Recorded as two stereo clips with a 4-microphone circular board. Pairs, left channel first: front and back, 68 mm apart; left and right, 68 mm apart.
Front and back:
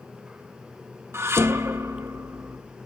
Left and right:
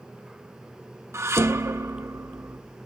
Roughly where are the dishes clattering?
Behind right.